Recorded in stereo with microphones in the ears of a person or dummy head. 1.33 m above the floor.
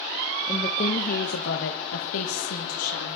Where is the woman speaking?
25° left (ahead or behind), 0.9 m; by 3.2 s 85° left, 2.0 m.